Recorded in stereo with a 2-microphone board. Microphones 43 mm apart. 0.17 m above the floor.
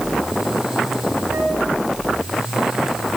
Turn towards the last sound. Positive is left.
turn(degrees=-70)  # may be behind; listen again after turning